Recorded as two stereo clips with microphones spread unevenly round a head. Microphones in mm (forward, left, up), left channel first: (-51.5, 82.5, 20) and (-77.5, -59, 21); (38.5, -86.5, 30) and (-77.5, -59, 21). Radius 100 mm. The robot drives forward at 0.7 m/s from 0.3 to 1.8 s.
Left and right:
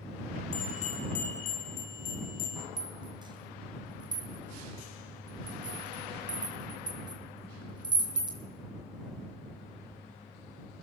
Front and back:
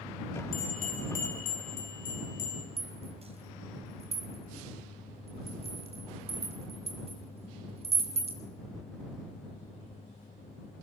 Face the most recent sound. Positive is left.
turn(degrees=-160)